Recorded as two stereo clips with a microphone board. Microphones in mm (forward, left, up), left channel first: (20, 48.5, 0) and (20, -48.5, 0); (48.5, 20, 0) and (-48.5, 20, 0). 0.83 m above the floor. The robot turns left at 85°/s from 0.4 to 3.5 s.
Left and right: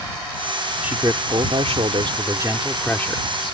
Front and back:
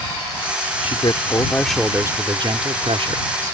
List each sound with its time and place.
0.8 s a man speaking: 15° right; by 3.5 s 120° left